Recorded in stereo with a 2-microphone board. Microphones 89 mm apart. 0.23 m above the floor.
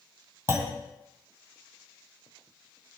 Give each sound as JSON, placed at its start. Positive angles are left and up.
{"t": 0.5, "sound": "a clunk", "side_deg": -25, "distance_m": 2.0}